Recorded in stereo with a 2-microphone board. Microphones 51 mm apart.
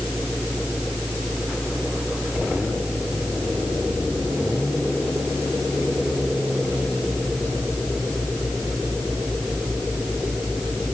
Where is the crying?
I don't hear crying.